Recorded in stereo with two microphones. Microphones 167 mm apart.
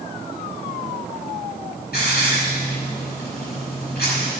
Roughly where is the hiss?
Left.